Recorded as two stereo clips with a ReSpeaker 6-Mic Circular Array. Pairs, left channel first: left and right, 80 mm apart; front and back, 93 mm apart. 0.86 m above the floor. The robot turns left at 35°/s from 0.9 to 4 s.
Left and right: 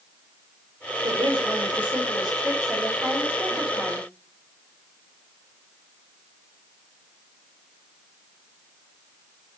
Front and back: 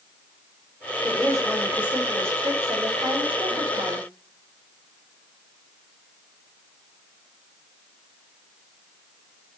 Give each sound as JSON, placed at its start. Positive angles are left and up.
{"t": 1.0, "sound": "a woman speaking", "azimuth_deg": -80, "distance_m": 2.0}